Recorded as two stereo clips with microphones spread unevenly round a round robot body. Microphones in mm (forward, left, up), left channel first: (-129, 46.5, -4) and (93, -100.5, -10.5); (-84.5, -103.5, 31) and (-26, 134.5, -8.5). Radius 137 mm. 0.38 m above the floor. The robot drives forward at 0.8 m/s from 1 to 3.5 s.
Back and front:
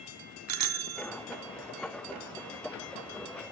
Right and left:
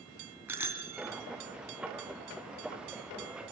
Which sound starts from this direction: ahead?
A bicycle bell, at 0.5 s.